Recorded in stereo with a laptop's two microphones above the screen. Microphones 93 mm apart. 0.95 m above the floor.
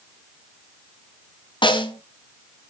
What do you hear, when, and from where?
1.6 s a snare drum: 60° left (ahead or behind), 2.5 m